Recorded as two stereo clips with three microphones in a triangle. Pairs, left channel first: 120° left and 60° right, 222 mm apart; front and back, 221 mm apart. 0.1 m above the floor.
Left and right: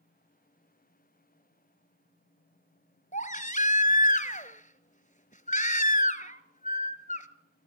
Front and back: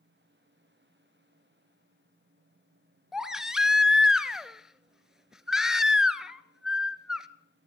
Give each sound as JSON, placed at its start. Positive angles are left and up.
{"t": 3.1, "sound": "a baby crying", "azimuth_deg": 95, "distance_m": 1.0}